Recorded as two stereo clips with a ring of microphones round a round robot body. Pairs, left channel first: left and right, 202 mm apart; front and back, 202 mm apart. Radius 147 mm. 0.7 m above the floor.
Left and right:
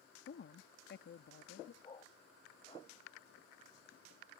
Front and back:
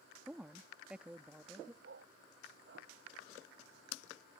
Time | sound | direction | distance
0.3 | a woman speaking | 95° left | ?
1.8 | a dog barking | 150° left | ?